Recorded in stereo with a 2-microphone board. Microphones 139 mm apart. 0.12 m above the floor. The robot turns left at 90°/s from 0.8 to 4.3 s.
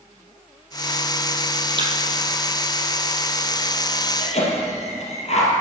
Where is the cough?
60° left (ahead or behind), 3 m; by 5.5 s 50° left (ahead or behind), 3 m.